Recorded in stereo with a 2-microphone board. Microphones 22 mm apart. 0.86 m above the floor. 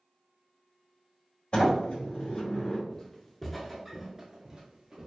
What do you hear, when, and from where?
1.5 s a sliding door: 50° left (ahead or behind), 1.3 m
2.9 s footsteps: 20° left (ahead or behind), 0.9 m; by 5.1 s 35° right (ahead or behind), 1.1 m